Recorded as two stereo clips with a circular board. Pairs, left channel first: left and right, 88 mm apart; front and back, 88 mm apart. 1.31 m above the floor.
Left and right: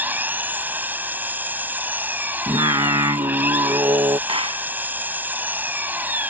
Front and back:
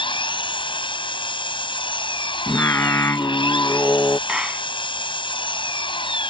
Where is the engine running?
20° right.